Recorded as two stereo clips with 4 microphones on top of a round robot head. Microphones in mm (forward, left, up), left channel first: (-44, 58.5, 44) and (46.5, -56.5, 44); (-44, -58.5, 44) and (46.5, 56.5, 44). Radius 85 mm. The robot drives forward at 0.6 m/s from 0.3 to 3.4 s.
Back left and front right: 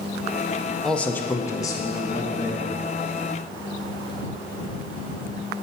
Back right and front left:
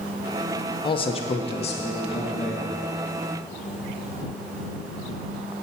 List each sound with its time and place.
0.8 s a man speaking: 145° right, 0.6 m; by 2.7 s 175° right, 1.5 m